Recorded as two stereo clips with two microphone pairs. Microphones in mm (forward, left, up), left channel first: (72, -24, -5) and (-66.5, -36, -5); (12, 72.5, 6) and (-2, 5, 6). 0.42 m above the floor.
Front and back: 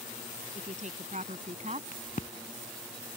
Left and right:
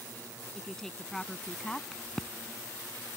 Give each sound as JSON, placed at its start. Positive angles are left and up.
{"t": 0.6, "sound": "a woman speaking", "azimuth_deg": 160}
{"t": 1.9, "sound": "a crack", "azimuth_deg": 0}